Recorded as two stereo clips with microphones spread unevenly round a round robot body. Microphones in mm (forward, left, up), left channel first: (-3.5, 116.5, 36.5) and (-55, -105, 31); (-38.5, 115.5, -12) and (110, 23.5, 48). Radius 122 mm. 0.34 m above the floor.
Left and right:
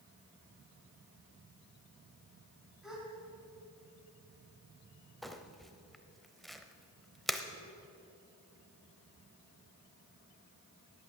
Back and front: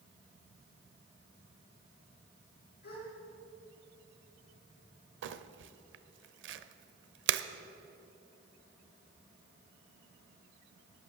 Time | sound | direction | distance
2.8 | a gasp | 170° left | 3.5 m
5.2 | crumpling | 15° right | 0.6 m